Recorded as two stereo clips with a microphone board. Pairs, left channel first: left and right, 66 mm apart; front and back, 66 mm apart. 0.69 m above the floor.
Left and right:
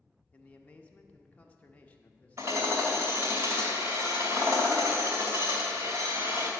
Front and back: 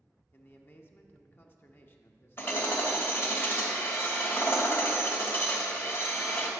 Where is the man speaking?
35° left, 0.8 m.